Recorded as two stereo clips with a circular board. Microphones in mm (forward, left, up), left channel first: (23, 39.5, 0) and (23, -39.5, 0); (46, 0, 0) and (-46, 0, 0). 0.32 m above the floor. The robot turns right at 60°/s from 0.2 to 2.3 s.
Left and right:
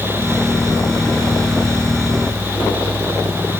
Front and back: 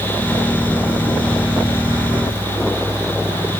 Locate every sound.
Only background noise.